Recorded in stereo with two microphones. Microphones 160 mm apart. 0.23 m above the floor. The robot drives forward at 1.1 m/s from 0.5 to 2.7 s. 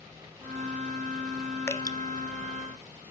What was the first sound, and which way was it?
Dripping, 15° left (ahead or behind).